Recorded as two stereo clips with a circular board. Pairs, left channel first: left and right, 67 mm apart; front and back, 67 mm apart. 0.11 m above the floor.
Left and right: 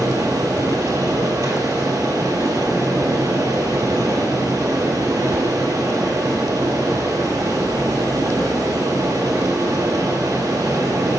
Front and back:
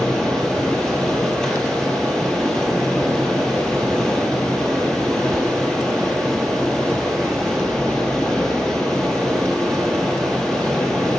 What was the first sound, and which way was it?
Running water, 75° right.